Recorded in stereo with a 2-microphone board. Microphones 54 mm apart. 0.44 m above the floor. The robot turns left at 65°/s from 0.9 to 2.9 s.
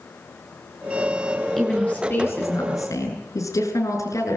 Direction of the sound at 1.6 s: 175° left.